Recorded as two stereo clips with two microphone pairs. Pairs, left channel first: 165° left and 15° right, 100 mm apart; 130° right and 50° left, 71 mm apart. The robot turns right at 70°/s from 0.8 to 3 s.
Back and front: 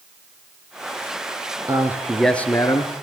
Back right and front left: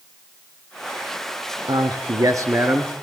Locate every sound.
1.7 s a man speaking: 40° left, 3 m; by 2.9 s 125° left, 3 m